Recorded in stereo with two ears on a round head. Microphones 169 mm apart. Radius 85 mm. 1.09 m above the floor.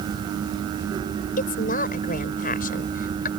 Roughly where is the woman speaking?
Left.